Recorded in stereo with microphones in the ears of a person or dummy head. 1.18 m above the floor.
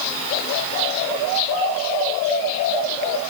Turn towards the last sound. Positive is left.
No sound to turn to.